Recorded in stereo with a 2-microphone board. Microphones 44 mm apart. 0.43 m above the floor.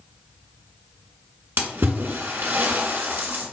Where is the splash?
55° right (ahead or behind), 0.9 m.